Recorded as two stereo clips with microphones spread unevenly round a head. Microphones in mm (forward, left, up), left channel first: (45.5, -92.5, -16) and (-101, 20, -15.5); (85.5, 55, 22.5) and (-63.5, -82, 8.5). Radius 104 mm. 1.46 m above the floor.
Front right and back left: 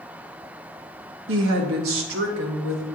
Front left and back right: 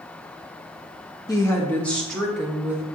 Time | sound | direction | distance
1.3 | a woman speaking | 115° left | 1.3 m